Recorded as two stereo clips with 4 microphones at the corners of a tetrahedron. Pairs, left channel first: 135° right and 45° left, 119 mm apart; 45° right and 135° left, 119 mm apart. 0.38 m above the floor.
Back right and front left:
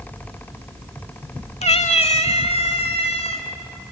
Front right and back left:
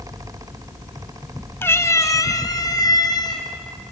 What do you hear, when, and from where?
1.6 s a cat meowing: 115° right, 0.9 m; by 3.5 s 100° right, 3 m